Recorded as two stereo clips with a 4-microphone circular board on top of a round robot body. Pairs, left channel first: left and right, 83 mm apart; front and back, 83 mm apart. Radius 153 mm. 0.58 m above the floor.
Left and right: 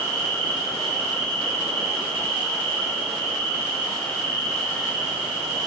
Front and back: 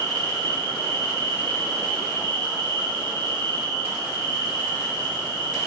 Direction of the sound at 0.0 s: 175° left.